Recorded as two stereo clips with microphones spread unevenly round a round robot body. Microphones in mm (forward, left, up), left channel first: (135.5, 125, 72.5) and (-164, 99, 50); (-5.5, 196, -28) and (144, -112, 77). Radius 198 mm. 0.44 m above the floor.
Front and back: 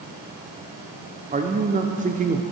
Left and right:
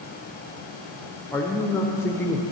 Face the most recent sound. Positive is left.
turn(degrees=160)